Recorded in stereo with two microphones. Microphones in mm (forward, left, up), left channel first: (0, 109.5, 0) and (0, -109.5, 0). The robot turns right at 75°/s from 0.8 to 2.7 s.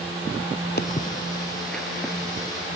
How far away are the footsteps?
About 1.2 m.